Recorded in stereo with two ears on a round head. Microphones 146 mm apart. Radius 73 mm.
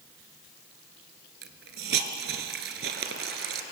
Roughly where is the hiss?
Right.